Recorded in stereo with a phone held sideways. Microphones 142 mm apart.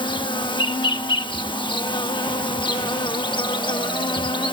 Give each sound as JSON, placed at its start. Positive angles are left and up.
{"t": 0.0, "sound": "an insect", "side_deg": 35}